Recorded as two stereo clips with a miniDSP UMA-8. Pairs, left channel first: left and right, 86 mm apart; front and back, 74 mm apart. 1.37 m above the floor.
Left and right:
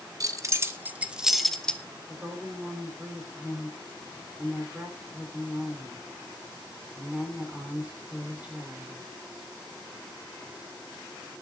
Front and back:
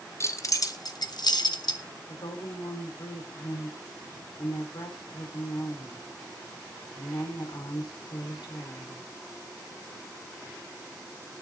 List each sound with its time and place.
0.2 s keys jangling: 45° right, 1.1 m; by 1.8 s 10° left, 1.1 m
2.1 s a woman speaking: 15° right, 4.5 m